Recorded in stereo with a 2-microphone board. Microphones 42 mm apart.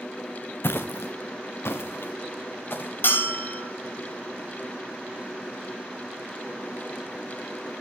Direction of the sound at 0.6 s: 60° left (ahead or behind).